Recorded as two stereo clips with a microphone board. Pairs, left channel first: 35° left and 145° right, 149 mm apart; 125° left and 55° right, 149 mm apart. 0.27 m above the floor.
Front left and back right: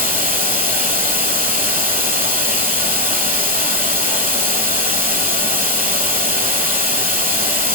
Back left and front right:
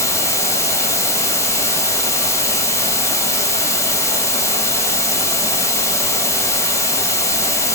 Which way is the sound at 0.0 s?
170° right.